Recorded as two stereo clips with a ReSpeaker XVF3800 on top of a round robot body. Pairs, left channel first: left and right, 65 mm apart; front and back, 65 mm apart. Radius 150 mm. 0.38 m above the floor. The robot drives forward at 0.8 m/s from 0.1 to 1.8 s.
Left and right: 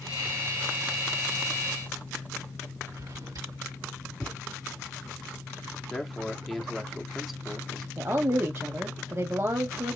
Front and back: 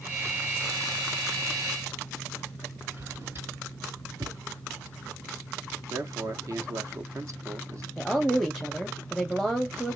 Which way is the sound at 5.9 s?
Straight behind.